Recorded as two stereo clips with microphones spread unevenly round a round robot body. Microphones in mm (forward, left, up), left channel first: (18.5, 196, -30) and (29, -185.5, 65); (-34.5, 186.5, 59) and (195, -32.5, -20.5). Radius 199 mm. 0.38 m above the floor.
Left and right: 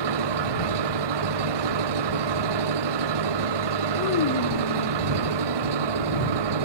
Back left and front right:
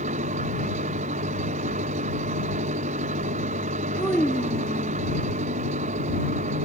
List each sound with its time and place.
0.0 s an engine running: 115° right
4.0 s a child speaking: 45° left